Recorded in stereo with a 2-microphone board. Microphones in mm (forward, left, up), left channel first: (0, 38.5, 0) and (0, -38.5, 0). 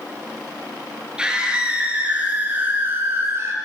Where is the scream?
10° right (ahead or behind), 6.5 m; by 3.5 s 35° right (ahead or behind), 4.5 m.